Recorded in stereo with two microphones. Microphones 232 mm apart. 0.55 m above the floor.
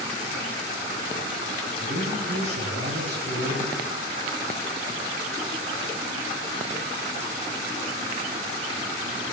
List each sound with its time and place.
1.8 s a man speaking: 50° right (ahead or behind), 3 m